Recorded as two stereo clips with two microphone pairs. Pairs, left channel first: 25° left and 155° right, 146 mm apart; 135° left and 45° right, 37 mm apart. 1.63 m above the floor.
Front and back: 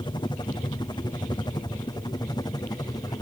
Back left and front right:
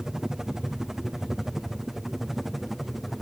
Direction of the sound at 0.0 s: 15° left.